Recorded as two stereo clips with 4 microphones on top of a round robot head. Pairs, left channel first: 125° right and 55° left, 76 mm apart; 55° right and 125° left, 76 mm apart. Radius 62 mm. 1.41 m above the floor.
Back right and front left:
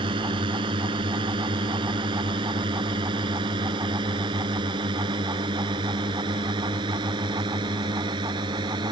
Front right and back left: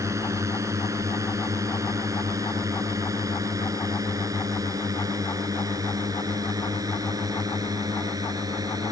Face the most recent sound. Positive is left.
turn(degrees=80)